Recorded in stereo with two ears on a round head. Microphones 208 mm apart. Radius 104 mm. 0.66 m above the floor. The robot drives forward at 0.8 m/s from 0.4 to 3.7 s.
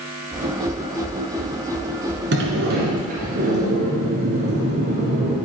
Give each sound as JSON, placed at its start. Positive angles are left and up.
{"t": 2.3, "sound": "a sliding door", "side_deg": -50, "distance_m": 2.0}